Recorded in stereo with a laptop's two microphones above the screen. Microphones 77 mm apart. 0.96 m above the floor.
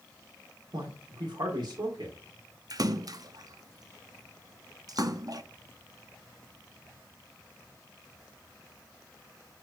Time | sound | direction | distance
0.7 | a man speaking | 75° right (ahead or behind) | 2.0 m
2.7 | a splash | 55° right (ahead or behind) | 0.7 m